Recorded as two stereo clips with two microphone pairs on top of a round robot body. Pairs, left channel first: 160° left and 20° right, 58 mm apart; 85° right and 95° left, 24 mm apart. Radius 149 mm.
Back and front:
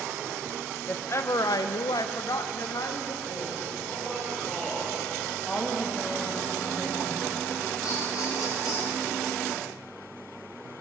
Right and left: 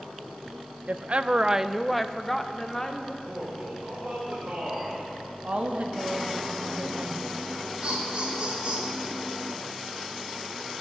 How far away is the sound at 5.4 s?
About 2 m.